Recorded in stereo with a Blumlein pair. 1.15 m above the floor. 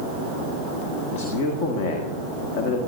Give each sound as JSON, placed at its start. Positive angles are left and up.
{"t": 1.1, "sound": "a man speaking", "azimuth_deg": 45, "distance_m": 1.9}